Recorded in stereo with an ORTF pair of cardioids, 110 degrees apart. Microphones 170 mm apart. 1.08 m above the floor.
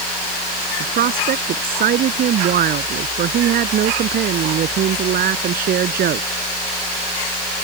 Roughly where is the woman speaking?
Ahead right.